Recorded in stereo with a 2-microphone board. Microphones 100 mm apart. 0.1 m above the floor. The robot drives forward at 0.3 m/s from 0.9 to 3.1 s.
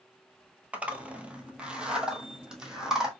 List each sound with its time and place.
0.7 s a zipper: 15° right (ahead or behind), 0.7 m; by 3.1 s 10° right (ahead or behind), 1.3 m